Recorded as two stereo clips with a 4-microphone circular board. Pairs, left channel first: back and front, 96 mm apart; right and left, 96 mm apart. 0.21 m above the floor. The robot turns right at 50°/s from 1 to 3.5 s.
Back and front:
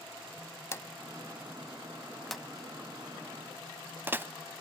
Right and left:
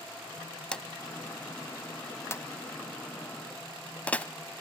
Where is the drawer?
160° right, 0.5 m; by 4.3 s 35° right, 0.5 m.